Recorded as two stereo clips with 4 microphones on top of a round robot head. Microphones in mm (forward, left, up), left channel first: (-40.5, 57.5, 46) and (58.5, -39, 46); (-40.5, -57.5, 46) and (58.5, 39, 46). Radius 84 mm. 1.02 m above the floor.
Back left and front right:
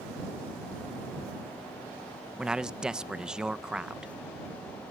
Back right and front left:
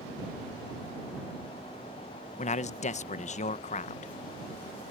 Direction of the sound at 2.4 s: 130° right.